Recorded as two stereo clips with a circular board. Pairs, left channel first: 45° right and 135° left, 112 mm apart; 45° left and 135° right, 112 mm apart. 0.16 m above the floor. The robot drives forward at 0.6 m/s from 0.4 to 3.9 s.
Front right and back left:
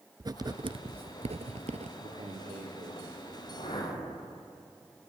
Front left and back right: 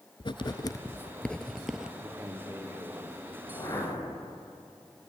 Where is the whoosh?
10° right, 7 m.